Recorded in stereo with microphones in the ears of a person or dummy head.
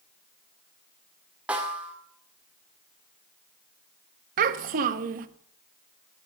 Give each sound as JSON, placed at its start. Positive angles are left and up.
{"t": 1.5, "sound": "a snare drum", "side_deg": -5, "distance_m": 1.8}
{"t": 4.4, "sound": "a child speaking", "side_deg": -45, "distance_m": 1.1}